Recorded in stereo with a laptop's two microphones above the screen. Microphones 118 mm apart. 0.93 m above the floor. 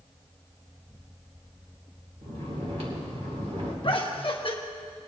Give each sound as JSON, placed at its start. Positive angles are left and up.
{"t": 2.2, "sound": "snoring", "side_deg": -65, "distance_m": 2.0}
{"t": 3.8, "sound": "laughter", "side_deg": 50, "distance_m": 1.2}